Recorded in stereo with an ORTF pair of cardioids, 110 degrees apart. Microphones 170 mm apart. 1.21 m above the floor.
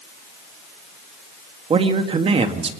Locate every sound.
1.7 s a woman speaking: 35° right, 2.0 m